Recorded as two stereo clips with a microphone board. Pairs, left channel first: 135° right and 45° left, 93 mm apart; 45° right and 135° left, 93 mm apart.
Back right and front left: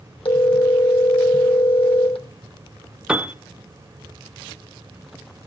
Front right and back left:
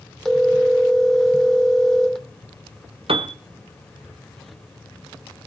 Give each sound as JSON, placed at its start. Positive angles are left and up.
{"t": 0.2, "sound": "a phone ringing", "azimuth_deg": -130, "distance_m": 2.5}
{"t": 3.1, "sound": "a piano", "azimuth_deg": 125, "distance_m": 0.7}